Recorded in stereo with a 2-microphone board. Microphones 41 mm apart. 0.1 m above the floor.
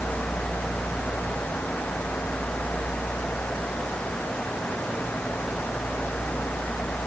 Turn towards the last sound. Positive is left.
No sound to turn to.